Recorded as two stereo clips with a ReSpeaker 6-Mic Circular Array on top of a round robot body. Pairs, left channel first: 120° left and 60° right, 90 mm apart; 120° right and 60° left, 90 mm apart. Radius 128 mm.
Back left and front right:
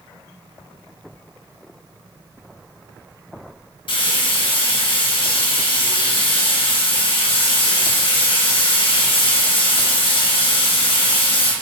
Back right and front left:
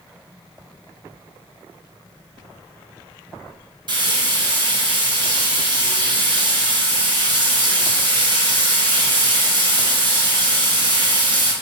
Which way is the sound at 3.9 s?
90° left.